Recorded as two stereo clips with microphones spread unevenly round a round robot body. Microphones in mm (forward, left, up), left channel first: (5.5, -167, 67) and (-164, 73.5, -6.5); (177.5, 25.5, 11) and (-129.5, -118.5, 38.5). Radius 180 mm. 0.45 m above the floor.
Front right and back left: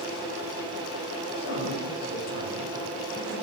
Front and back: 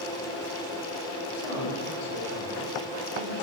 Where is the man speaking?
10° left, 7 m.